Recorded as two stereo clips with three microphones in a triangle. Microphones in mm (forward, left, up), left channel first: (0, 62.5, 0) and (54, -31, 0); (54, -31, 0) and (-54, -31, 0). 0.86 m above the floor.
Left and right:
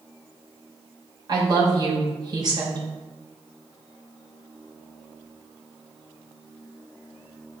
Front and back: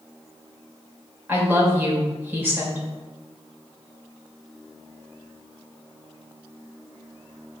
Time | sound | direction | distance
1.3 | a woman speaking | 105° right | 2.5 m